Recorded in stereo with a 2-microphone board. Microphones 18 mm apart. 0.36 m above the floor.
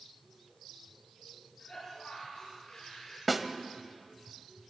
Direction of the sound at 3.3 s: 10° right (ahead or behind).